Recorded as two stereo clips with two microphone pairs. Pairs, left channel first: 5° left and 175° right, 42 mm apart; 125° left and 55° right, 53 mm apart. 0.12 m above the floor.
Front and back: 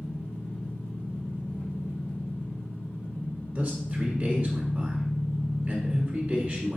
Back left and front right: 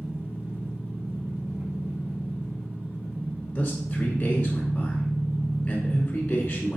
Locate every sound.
0.0 s an engine running: 5° right, 2.5 m
3.5 s a man speaking: 175° left, 1.1 m